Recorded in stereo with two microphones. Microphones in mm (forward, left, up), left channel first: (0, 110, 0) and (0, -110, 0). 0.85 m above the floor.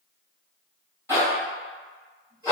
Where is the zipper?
10° right (ahead or behind), 1.3 m.